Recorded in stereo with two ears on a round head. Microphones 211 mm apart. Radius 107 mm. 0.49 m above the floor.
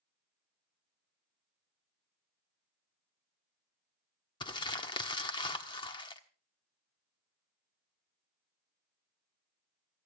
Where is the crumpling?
20° left (ahead or behind), 1.1 m.